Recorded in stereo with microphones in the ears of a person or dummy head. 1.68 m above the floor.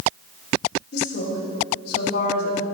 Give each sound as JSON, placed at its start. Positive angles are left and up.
{"t": 0.9, "sound": "a woman speaking", "side_deg": 70, "distance_m": 4.0}